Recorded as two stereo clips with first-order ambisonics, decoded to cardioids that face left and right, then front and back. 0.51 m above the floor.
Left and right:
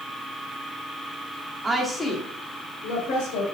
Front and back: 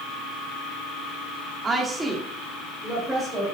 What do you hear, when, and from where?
1.6 s a woman speaking: 135° right, 1.2 m; by 3.5 s 80° left, 2.5 m